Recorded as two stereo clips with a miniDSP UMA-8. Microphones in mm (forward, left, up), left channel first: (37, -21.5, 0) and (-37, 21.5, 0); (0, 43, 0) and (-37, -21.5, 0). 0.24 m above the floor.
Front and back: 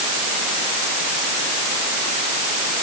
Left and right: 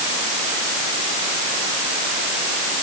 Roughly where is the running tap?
No running tap in this recording.